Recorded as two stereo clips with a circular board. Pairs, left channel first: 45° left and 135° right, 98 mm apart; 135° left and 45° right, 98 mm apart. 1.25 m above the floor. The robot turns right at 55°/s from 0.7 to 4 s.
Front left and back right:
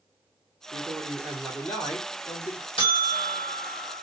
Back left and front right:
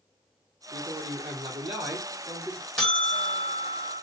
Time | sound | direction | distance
0.7 | a man speaking | 80° right | 1.0 m
2.8 | a buzzer | 50° left | 1.4 m